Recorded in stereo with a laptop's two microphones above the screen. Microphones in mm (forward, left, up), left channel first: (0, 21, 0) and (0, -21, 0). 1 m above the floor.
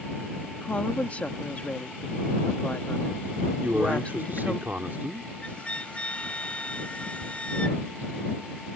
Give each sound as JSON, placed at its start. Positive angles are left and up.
{"t": 0.6, "sound": "a woman speaking", "side_deg": 35}
{"t": 3.6, "sound": "a man speaking", "side_deg": -50}
{"t": 5.4, "sound": "a flute", "side_deg": 30}
{"t": 7.2, "sound": "a toilet flushing", "side_deg": 0}